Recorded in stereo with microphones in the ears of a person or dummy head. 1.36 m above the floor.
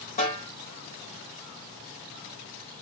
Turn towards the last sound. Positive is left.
turn(degrees=40)  # may be behind; listen again after turning